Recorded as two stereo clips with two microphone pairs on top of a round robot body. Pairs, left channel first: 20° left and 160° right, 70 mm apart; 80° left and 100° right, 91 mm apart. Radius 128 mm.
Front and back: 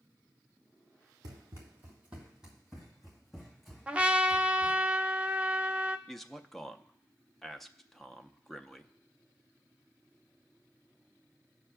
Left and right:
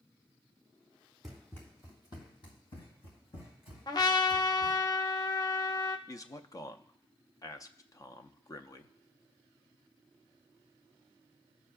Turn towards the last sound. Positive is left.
turn(degrees=105)